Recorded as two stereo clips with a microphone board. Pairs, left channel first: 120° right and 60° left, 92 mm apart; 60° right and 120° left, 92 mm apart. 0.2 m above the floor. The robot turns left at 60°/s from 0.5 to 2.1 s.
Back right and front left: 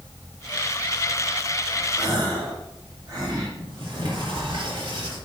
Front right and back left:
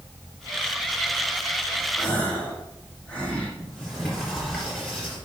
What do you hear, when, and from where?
2.0 s a gasp: 25° left, 3.5 m; by 3.5 s 20° left, 3.5 m
3.6 s a sliding door: 25° left, 4 m